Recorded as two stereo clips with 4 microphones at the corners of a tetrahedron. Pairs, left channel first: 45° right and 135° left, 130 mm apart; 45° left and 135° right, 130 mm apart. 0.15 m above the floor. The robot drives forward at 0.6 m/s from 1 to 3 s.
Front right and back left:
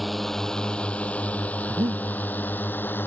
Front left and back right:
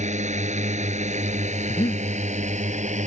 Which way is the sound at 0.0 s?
135° right.